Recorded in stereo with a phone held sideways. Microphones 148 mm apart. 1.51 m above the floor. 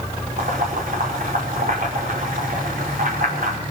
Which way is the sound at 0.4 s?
70° right (ahead or behind).